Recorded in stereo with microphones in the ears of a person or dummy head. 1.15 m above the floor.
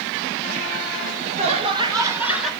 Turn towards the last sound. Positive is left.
turn(degrees=0)  # may be behind; listen again after turning